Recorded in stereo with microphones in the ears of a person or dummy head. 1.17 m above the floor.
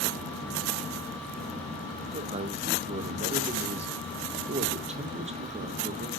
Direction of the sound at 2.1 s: 30° right (ahead or behind).